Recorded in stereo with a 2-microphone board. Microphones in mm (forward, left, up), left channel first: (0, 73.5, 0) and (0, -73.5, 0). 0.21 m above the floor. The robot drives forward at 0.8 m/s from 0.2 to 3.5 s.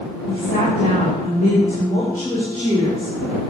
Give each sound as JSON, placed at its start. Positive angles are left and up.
{"t": 0.3, "sound": "a woman speaking", "side_deg": 75, "distance_m": 5.5}